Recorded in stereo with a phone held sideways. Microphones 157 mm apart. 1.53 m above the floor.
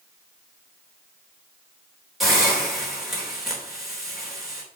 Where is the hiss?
Centre (ahead or behind), 3 m.